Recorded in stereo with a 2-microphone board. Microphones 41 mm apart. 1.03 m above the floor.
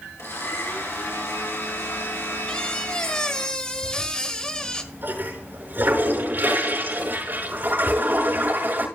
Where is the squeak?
20° left (ahead or behind), 1.2 m.